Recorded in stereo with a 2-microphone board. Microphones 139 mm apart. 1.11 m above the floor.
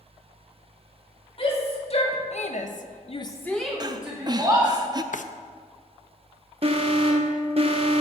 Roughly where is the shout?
Left.